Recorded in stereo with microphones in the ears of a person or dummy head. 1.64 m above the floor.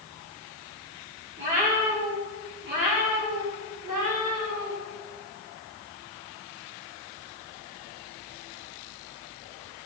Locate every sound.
1.4 s a cat meowing: 30° right (ahead or behind), 1.0 m; by 4.7 s 50° right (ahead or behind), 2.5 m